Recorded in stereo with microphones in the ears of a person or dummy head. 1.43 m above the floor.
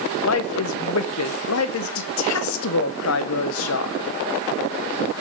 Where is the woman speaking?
80° left, 0.9 m.